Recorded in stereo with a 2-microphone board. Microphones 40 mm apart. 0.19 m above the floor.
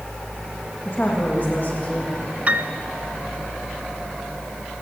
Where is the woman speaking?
50° left (ahead or behind), 8 m; by 2.3 s 40° left (ahead or behind), 7 m.